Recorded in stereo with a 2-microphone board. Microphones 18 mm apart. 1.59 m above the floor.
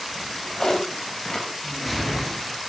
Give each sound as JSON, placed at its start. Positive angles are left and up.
{"t": 0.1, "sound": "a drawer", "side_deg": 45, "distance_m": 4.5}
{"t": 1.6, "sound": "a whoosh", "side_deg": 10, "distance_m": 4.0}